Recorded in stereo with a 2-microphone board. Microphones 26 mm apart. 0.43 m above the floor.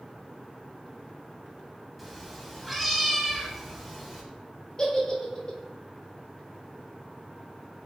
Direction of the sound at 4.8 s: 35° left (ahead or behind).